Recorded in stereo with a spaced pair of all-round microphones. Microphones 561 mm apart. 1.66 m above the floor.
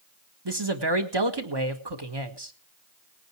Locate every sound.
0.5 s a man speaking: 45° right (ahead or behind), 1.5 m